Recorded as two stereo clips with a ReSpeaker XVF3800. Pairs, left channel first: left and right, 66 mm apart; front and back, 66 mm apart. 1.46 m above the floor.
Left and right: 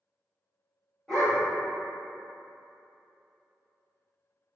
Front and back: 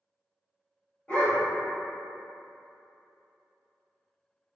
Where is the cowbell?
I don't hear a cowbell.